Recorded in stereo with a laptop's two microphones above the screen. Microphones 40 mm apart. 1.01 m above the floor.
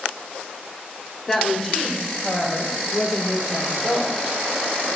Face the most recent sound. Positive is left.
turn(degrees=50)  # may be behind; listen again after turning